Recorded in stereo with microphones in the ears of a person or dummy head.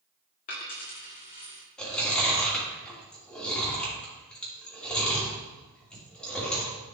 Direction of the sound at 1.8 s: 5° left (ahead or behind).